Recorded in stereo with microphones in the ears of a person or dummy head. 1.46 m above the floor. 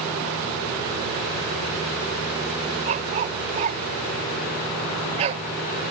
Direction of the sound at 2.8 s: 40° right (ahead or behind).